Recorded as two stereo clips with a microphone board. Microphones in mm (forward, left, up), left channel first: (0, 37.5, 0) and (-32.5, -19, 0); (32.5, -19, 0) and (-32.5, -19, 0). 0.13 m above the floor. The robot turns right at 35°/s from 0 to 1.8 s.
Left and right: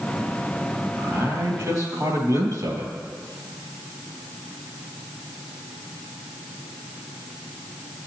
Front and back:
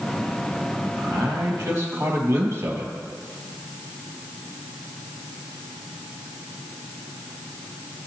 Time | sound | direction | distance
1.0 | a man speaking | 170° right | 3 m